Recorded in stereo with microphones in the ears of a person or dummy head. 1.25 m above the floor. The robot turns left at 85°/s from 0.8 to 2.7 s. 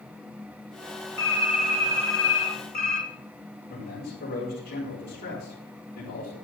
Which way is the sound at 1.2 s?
95° right.